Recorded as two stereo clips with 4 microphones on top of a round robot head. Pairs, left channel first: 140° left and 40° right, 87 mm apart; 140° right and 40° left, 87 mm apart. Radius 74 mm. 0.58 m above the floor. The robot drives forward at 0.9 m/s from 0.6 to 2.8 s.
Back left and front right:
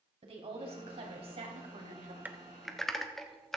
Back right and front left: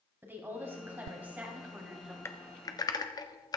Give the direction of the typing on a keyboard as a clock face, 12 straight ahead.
3 o'clock.